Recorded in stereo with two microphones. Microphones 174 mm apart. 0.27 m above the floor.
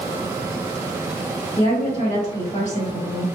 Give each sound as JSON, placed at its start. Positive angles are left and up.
{"t": 1.6, "sound": "a woman speaking", "side_deg": 40, "distance_m": 1.5}